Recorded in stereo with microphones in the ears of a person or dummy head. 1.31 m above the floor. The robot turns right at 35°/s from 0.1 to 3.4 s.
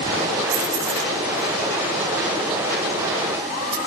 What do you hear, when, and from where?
0.5 s keys jangling: 60° right (ahead or behind), 4.5 m; by 3.8 s 15° right (ahead or behind), 4.5 m